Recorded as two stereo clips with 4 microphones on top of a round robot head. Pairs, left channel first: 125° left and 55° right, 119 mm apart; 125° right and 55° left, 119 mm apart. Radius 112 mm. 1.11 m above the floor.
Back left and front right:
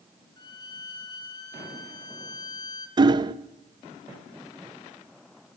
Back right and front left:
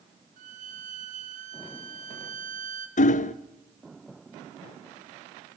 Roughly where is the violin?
Left.